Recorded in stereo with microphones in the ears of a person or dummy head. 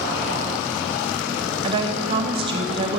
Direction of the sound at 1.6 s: 30° right (ahead or behind).